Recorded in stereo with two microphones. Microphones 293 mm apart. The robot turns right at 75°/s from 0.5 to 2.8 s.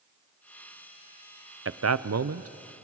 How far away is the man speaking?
About 0.5 m.